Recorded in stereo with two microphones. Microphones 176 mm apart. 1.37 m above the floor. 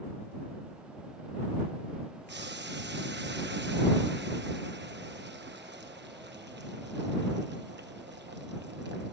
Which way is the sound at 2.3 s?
80° right.